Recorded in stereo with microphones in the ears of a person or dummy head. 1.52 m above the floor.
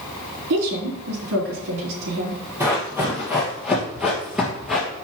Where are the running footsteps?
15° right (ahead or behind), 3 m; by 4.9 s centre (ahead or behind), 2 m.